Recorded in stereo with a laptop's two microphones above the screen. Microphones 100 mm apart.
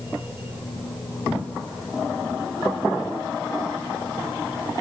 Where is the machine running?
65° left (ahead or behind).